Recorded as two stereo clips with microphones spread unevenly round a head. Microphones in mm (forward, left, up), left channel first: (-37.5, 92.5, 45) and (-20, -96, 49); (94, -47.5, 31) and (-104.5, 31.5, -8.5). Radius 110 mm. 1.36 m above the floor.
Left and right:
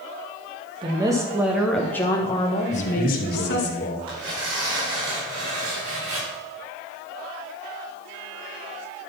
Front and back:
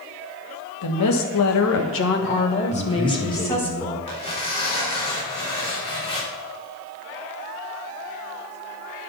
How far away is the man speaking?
About 2.5 m.